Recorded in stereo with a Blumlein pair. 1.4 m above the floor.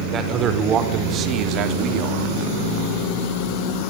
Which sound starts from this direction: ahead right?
A man speaking, at 0.1 s.